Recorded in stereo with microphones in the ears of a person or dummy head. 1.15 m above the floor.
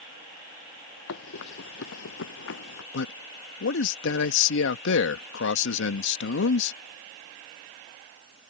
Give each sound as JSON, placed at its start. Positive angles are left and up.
{"t": 1.1, "sound": "running footsteps", "side_deg": 65}
{"t": 2.9, "sound": "a man speaking", "side_deg": 65}